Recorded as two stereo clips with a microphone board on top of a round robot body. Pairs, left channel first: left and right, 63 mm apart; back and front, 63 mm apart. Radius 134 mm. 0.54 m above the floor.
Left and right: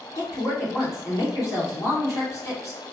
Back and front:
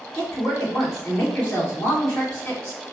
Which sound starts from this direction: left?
A woman speaking, at 0.1 s.